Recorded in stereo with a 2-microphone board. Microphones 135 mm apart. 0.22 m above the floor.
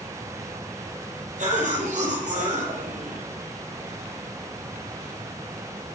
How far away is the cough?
About 7 m.